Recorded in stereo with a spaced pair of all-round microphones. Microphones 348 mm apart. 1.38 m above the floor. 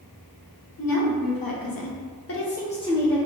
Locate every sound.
0.8 s a woman speaking: 70° left (ahead or behind), 1.0 m; by 3.2 s centre (ahead or behind), 0.8 m